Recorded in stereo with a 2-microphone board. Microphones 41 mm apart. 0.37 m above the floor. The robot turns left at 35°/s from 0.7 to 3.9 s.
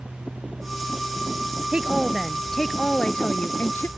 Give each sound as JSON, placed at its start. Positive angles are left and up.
{"t": 1.7, "sound": "a woman speaking", "azimuth_deg": -155}